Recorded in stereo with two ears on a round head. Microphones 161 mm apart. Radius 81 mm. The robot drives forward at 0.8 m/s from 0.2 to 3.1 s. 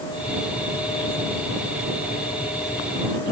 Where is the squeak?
No squeak in this recording.